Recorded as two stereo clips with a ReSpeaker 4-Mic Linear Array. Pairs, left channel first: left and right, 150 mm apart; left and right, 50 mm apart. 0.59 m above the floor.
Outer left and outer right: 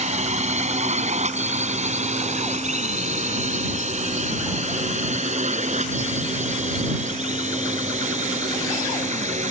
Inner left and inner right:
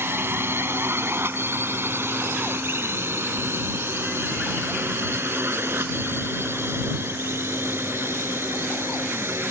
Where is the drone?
50° right (ahead or behind).